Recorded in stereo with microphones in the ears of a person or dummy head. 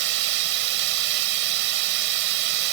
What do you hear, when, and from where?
0.0 s running water: 55° right (ahead or behind)